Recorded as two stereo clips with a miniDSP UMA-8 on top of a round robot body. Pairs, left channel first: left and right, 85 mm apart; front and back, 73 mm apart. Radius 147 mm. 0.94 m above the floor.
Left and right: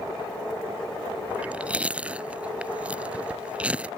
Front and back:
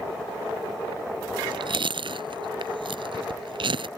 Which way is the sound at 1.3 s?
165° right.